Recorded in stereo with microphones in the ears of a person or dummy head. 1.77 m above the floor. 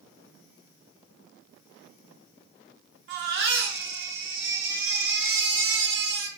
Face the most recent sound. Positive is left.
turn(degrees=-60)  # may be behind; listen again after turning